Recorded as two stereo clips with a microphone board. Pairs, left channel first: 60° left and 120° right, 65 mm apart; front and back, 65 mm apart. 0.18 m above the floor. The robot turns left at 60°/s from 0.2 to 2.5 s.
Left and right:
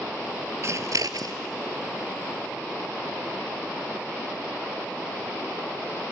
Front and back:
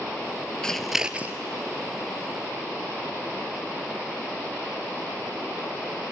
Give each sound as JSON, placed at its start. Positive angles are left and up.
{"t": 0.6, "sound": "scissors", "azimuth_deg": -80, "distance_m": 0.9}